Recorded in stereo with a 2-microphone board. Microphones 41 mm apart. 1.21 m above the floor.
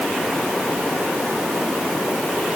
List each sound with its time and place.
Only background noise.